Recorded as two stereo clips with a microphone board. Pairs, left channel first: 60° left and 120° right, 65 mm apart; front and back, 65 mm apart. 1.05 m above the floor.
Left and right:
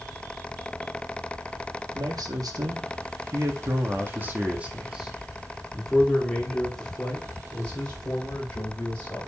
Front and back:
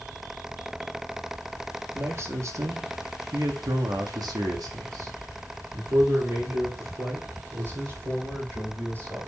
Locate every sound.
1.9 s a man speaking: 130° right, 2.0 m; by 9.3 s 130° left, 4.5 m